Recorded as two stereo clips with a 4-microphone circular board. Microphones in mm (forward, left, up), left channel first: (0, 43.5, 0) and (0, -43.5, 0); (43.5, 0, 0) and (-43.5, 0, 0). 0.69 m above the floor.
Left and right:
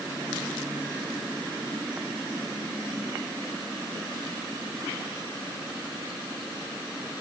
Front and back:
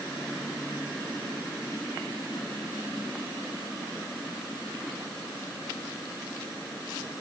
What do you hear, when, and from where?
Only background noise.